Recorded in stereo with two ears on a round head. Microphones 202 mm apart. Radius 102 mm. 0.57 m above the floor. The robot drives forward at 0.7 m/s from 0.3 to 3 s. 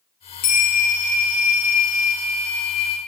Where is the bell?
75° left (ahead or behind), 3 m; by 3.0 s 70° left (ahead or behind), 3 m.